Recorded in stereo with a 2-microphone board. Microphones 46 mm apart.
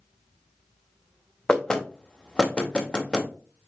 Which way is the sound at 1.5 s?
20° left (ahead or behind).